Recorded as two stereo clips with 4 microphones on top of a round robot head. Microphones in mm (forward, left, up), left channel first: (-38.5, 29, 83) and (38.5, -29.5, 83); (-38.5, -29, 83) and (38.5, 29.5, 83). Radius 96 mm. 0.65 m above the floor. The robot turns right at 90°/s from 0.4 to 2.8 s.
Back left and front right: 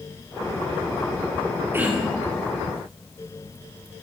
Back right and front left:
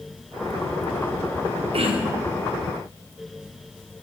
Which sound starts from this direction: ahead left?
Throat clearing, at 1.7 s.